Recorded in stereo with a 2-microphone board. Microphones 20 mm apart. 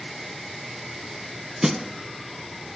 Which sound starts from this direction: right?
A snare drum, at 1.6 s.